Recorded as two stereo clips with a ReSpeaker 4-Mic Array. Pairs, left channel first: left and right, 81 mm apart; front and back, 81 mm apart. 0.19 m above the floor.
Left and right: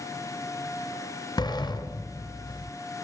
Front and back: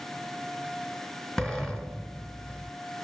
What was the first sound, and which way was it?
A sliding door, 85° left.